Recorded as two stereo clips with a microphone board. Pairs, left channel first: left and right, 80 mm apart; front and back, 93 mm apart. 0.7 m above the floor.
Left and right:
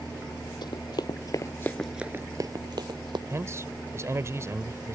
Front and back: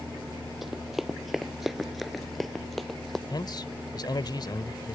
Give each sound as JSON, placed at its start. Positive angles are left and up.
{"t": 0.6, "sound": "running footsteps", "azimuth_deg": 95}
{"t": 3.3, "sound": "a man speaking", "azimuth_deg": -40}